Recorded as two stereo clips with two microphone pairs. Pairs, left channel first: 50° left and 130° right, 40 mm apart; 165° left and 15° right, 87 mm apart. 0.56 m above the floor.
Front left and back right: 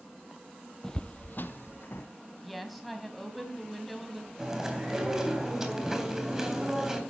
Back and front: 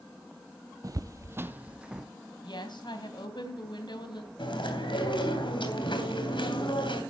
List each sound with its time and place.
0.8 s footsteps: 30° right, 0.7 m; by 2.1 s 70° left, 1.5 m
2.4 s a woman speaking: 140° left, 3 m
4.4 s chewing: 155° left, 3 m